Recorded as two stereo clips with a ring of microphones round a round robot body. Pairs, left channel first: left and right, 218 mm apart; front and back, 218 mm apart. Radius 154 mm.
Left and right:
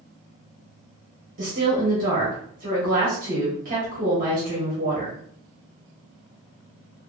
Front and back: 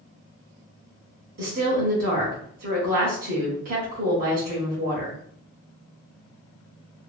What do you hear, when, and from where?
1.4 s a woman speaking: 135° right, 0.9 m